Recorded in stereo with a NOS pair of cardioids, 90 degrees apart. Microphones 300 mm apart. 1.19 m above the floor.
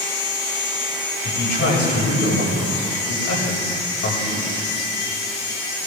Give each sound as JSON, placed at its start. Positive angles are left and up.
{"t": 1.2, "sound": "a man speaking", "azimuth_deg": 60, "distance_m": 7.0}